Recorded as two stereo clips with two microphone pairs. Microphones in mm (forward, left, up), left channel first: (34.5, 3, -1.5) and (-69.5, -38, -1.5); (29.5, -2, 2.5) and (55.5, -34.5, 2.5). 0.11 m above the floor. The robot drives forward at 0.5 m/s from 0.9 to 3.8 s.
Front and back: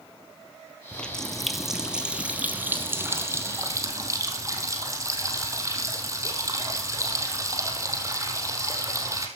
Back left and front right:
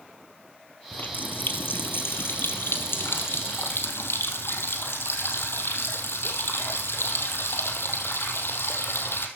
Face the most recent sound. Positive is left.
turn(degrees=140)